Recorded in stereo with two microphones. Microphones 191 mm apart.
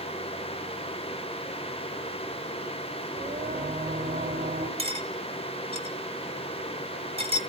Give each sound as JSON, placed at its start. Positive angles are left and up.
{"t": 3.2, "sound": "singing", "side_deg": -35, "distance_m": 2.0}
{"t": 4.8, "sound": "cutlery clinking", "side_deg": -30, "distance_m": 1.8}